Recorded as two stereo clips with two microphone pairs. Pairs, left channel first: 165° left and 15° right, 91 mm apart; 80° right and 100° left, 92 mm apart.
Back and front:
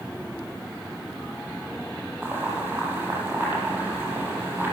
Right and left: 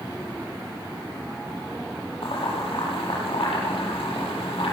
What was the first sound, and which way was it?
Boiling, 85° right.